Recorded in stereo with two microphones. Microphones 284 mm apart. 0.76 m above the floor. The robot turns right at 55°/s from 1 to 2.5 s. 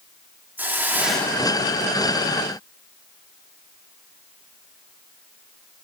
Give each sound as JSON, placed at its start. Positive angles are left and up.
{"t": 0.6, "sound": "a hiss", "azimuth_deg": -5, "distance_m": 0.9}